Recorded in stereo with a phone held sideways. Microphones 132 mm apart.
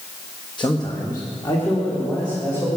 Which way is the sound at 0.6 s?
35° left (ahead or behind).